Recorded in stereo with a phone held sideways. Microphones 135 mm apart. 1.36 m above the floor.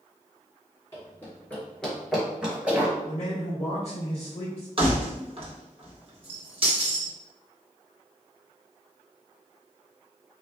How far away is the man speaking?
About 1.5 m.